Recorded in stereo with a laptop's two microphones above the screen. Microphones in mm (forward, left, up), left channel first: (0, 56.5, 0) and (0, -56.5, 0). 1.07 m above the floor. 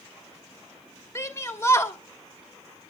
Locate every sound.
1.1 s a shout: 25° left (ahead or behind), 1.3 m